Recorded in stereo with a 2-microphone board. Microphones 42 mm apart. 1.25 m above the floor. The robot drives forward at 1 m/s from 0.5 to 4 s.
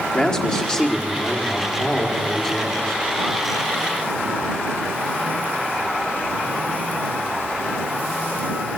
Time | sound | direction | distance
0.1 | a man speaking | 20° left (ahead or behind) | 3.5 m